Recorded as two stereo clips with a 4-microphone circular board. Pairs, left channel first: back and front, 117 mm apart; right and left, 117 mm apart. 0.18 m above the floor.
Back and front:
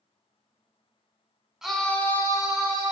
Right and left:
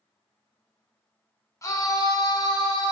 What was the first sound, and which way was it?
A scream, 80° right.